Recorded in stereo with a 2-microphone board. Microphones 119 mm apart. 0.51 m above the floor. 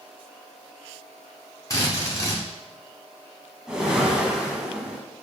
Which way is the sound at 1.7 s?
25° left (ahead or behind).